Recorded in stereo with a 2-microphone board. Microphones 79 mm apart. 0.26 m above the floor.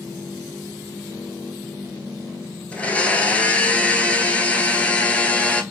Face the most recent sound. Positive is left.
turn(degrees=15)  # may be behind; listen again after turning